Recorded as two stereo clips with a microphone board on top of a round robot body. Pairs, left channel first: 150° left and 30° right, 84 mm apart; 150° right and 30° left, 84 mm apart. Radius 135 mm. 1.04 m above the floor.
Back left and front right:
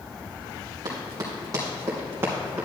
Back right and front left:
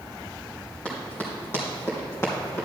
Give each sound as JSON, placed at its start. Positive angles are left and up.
{"t": 0.8, "sound": "running footsteps", "azimuth_deg": -75, "distance_m": 2.5}